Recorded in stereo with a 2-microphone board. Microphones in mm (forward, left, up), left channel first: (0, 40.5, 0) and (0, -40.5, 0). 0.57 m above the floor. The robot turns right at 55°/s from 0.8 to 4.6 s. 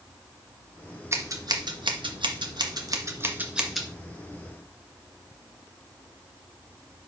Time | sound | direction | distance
1.1 | scissors | 35° right (ahead or behind) | 1.6 m